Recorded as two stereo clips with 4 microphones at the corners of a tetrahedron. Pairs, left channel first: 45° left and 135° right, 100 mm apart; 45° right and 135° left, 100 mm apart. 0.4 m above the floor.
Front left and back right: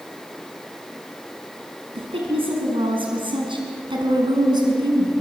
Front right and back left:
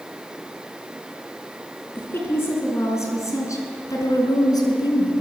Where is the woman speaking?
115° right, 4.5 m; by 5.2 s 90° right, 4.5 m.